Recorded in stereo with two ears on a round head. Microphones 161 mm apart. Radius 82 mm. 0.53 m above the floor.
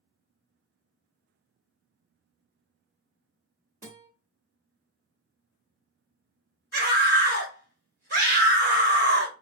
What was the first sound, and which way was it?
A guitar, 45° right (ahead or behind).